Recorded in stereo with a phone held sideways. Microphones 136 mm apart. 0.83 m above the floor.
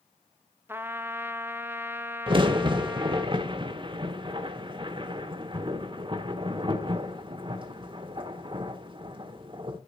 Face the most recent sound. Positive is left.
turn(degrees=-40)  # may be behind; listen again after turning